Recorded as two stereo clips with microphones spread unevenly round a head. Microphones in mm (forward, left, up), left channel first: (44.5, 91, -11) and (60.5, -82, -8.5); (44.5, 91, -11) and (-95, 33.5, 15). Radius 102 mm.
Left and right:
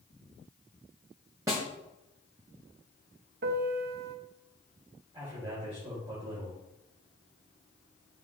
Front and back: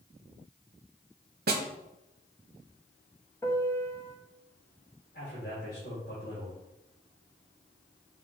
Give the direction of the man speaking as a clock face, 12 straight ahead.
1 o'clock.